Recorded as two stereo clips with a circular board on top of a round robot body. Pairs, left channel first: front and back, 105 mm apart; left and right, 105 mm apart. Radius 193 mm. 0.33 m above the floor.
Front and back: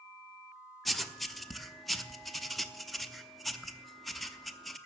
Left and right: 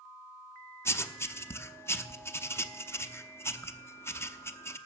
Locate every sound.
0.8 s writing: 90° left, 1.0 m